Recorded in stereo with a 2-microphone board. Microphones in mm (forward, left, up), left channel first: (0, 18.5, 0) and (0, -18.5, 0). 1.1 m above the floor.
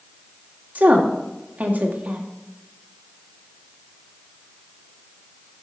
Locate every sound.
0.8 s a woman speaking: 50° right (ahead or behind), 1.7 m